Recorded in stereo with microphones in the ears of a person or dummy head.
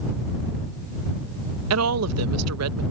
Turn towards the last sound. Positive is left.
turn(degrees=-85)